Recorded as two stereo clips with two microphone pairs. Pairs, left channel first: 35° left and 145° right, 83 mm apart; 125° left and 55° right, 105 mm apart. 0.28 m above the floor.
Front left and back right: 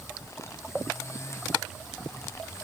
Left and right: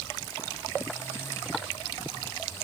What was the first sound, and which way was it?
Only background noise.